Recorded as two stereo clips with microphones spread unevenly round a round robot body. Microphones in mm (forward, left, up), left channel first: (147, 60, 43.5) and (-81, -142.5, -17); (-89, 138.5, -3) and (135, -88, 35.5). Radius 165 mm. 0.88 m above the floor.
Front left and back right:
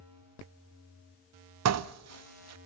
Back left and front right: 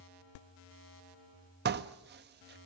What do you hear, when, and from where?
1.6 s dishes clattering: 105° right, 0.7 m